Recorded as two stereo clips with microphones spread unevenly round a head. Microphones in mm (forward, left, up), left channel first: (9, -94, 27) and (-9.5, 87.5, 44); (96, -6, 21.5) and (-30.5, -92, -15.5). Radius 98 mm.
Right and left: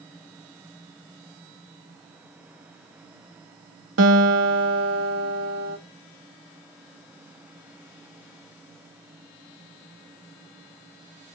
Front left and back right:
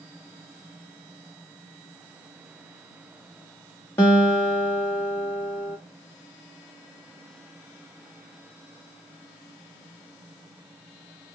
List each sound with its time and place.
4.0 s a guitar: 105° left, 0.9 m